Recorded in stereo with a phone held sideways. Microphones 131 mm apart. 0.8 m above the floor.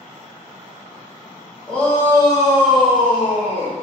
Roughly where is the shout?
Centre.